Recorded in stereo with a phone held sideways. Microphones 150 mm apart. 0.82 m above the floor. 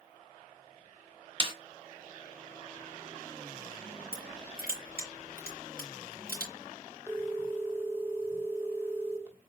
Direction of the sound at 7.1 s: 20° right (ahead or behind).